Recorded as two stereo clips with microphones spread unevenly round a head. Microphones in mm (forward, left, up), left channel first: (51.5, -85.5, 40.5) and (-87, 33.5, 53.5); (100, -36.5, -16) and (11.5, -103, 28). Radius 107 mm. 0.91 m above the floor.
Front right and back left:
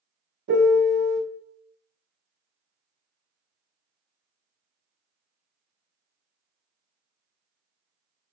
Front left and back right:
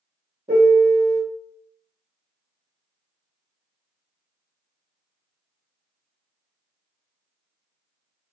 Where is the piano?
150° left, 0.7 m.